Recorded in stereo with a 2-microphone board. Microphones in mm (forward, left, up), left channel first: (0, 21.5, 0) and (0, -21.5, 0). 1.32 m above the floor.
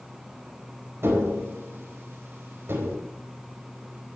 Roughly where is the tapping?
Right.